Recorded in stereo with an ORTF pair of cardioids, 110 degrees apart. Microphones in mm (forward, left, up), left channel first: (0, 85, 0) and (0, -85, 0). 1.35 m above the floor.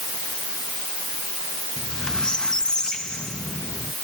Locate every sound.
1.8 s a squeak: 5° left